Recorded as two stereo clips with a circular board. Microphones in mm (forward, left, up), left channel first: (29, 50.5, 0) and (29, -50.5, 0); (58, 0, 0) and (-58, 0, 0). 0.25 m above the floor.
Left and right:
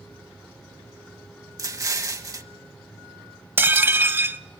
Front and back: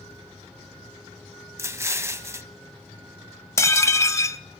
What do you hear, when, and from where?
1.6 s an explosion: 125° right, 1.1 m
3.6 s dishes clattering: 40° right, 0.8 m